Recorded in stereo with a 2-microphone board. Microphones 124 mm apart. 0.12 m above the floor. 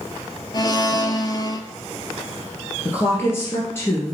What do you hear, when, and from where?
0.5 s a blender: 35° left (ahead or behind), 0.5 m
2.9 s a woman speaking: 20° left (ahead or behind), 2 m